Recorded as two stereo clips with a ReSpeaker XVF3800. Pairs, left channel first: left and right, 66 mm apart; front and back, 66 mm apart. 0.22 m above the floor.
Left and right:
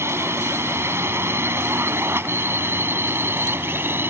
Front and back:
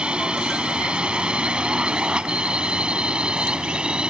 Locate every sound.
0.0 s a drone: 110° right; by 4.1 s 115° right